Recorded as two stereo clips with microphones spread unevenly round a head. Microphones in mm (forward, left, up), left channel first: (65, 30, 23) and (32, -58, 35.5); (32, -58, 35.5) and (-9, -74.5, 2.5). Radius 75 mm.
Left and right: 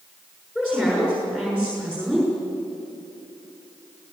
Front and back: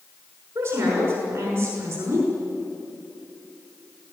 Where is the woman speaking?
170° left, 6 m.